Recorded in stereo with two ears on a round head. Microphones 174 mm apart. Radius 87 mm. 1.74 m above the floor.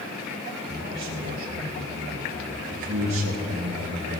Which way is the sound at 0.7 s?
65° right (ahead or behind).